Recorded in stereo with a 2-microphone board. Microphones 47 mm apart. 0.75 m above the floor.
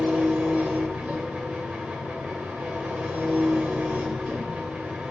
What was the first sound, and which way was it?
An engine running, 30° right (ahead or behind).